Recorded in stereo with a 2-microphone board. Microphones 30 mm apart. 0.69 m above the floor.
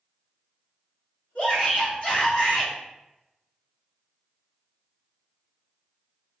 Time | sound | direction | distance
1.4 | a shout | 40° left (ahead or behind) | 1.5 m